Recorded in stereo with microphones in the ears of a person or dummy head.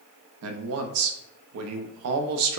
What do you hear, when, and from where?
0.4 s a man speaking: 75° right (ahead or behind), 0.5 m